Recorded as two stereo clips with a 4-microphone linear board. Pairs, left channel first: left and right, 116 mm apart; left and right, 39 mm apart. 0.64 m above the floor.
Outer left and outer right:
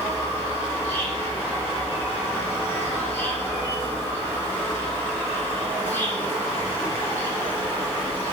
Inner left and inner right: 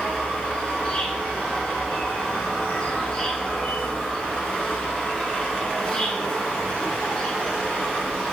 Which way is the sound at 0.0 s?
20° left (ahead or behind).